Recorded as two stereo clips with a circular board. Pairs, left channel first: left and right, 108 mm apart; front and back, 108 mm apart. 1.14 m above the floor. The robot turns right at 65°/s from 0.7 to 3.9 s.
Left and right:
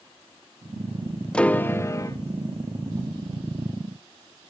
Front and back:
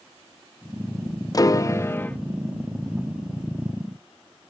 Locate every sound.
1.3 s a piano: 15° left, 0.5 m; by 2.2 s 70° left, 0.5 m